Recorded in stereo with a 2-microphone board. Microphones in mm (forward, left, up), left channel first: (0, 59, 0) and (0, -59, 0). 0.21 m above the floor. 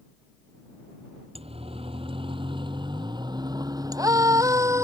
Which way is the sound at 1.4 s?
55° right (ahead or behind).